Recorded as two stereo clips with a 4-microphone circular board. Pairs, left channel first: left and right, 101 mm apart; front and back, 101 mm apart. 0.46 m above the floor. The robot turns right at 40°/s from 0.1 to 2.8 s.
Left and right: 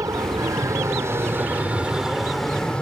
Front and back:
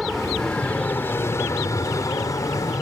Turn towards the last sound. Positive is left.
turn(degrees=20)